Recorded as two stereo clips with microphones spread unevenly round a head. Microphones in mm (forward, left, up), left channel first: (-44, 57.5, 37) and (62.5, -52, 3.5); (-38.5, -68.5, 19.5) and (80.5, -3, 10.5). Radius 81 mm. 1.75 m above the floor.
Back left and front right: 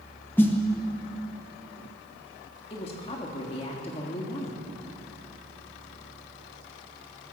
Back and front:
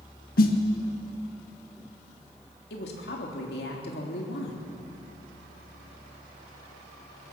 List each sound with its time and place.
0.4 s a snare drum: 150° right, 1.8 m
2.7 s a woman speaking: 170° right, 3.5 m